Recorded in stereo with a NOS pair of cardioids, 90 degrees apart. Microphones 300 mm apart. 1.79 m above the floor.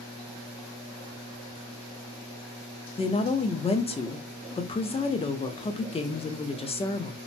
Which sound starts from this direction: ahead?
A woman speaking, at 3.0 s.